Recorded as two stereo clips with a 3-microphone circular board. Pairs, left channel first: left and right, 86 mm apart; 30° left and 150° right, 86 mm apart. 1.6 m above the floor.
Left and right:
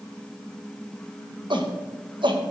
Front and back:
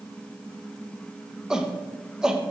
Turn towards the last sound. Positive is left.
turn(degrees=-65)